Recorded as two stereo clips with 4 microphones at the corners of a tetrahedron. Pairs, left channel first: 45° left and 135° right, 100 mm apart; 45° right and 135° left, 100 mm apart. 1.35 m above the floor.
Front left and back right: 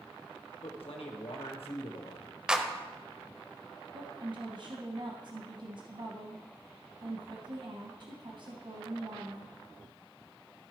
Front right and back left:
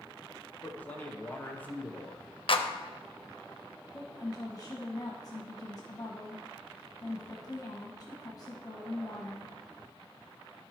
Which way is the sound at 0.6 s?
30° left.